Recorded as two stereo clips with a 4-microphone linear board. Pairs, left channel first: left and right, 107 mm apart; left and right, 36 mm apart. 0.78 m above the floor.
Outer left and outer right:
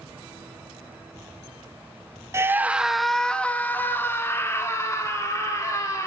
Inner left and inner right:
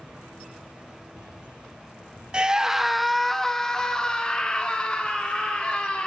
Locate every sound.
2.3 s a scream: 25° right (ahead or behind), 0.6 m; by 6.1 s 30° left (ahead or behind), 2 m